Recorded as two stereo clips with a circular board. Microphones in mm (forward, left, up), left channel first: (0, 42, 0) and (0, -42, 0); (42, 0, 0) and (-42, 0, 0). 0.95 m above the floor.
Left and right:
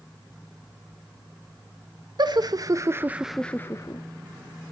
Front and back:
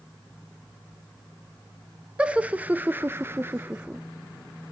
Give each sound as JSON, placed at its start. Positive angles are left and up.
{"t": 2.2, "sound": "laughter", "azimuth_deg": -105, "distance_m": 1.5}